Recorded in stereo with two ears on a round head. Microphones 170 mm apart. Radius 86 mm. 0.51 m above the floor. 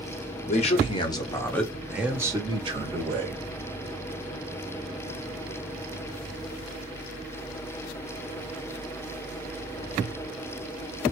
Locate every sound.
0.5 s a man speaking: 40° left (ahead or behind), 1.3 m; by 3.4 s 45° right (ahead or behind), 1.4 m